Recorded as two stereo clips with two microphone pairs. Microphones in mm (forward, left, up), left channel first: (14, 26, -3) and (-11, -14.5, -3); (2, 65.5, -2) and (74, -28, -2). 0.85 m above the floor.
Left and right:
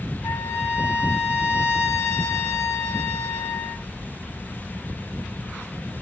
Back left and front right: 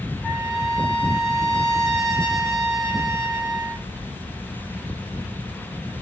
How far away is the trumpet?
About 3.5 m.